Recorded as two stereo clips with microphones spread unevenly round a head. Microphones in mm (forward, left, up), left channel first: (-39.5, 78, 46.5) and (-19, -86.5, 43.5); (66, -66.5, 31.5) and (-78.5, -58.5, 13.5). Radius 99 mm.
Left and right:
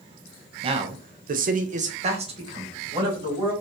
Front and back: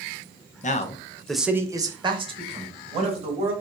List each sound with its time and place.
0.6 s a man speaking: 30° right, 0.6 m; by 3.5 s 145° right, 2 m